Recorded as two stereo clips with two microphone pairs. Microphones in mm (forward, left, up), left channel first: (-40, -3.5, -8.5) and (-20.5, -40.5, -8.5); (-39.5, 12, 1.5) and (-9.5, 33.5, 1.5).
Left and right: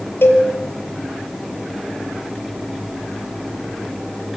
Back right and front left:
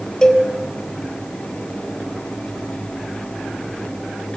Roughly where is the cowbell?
Behind left.